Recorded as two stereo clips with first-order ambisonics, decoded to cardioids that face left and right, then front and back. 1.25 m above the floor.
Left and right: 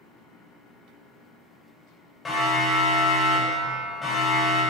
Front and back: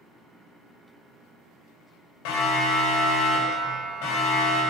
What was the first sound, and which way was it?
A siren, 10° left.